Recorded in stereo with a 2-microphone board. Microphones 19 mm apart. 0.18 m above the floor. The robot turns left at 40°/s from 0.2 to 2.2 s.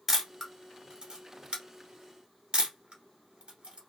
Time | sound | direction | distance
0.1 | a camera shutter | 15° right (ahead or behind) | 1.0 m